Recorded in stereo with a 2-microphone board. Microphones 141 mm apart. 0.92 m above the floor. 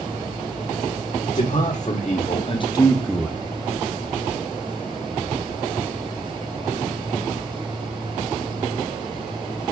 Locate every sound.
1.4 s a man speaking: 65° left (ahead or behind), 2.0 m; by 3.4 s 15° right (ahead or behind), 0.7 m